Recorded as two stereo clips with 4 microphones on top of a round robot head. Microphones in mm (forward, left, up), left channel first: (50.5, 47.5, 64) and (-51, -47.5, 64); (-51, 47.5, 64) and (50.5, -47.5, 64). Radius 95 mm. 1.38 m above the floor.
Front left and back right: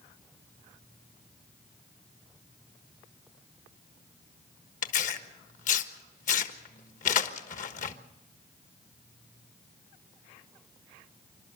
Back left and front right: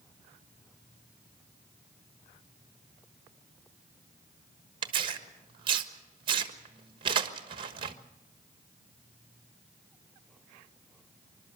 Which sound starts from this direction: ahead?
Tearing paper, at 4.8 s.